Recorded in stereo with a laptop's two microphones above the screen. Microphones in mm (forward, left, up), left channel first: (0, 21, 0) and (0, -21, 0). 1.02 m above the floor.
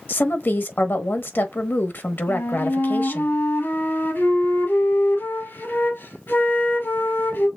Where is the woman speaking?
55° left (ahead or behind), 1.1 m.